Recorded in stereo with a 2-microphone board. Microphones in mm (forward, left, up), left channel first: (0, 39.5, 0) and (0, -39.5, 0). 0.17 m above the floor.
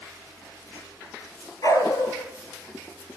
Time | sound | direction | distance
1.6 | a dog barking | 45° left (ahead or behind) | 1.5 m